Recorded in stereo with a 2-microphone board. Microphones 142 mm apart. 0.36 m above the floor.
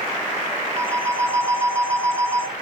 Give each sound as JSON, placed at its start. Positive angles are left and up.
{"t": 0.8, "sound": "a phone ringing", "side_deg": -15, "distance_m": 2.0}